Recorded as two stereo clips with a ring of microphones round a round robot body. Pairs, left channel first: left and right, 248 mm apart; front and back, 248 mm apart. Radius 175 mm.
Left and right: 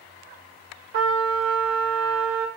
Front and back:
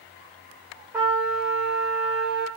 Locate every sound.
0.9 s a trumpet: 95° right, 0.6 m